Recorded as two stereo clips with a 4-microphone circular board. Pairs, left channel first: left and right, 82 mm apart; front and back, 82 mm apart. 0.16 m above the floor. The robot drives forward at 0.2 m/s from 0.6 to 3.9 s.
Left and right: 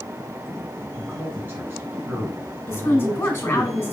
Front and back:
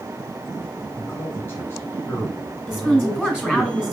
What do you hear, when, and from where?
1.0 s a man speaking: 40° right, 1.9 m; by 3.7 s 65° right, 1.7 m
2.7 s a woman speaking: 90° left, 1.7 m; by 3.9 s 115° left, 1.7 m